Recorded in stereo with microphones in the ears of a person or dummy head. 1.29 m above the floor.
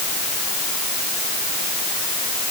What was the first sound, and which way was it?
Only background noise.